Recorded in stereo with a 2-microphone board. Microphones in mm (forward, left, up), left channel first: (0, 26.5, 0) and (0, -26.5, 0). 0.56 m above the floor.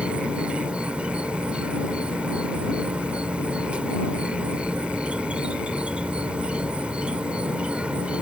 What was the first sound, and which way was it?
An insect, 20° right (ahead or behind).